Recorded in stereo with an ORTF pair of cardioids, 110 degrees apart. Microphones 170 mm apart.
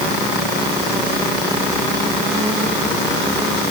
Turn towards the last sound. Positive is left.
No sound to turn to.